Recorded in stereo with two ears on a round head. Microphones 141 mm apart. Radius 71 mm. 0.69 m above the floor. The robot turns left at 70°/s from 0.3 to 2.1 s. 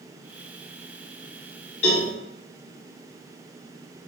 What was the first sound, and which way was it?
A cowbell, 40° left (ahead or behind).